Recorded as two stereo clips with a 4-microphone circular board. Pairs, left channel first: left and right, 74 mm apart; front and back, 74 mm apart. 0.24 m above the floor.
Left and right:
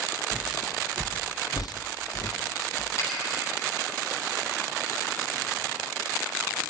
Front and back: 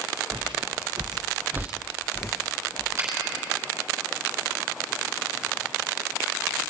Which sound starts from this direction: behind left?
A finger snap, at 3.0 s.